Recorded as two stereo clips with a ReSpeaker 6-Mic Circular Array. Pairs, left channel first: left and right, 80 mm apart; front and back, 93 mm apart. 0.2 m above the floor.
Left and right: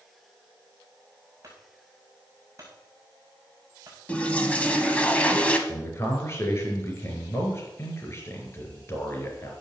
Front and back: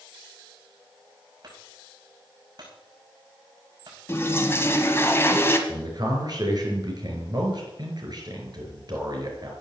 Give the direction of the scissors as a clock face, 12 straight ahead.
No scissors in this recording.